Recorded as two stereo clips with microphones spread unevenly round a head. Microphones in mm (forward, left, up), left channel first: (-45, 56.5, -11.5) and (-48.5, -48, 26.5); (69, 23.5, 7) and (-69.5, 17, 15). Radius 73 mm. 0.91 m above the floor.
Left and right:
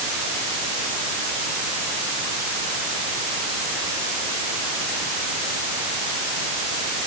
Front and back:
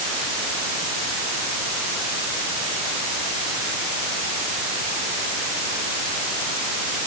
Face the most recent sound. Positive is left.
No sound to turn to.